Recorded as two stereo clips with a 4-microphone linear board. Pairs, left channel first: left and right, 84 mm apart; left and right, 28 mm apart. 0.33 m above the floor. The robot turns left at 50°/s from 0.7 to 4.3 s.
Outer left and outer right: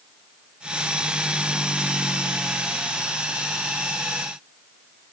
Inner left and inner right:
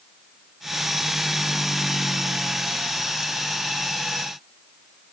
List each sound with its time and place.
Only background noise.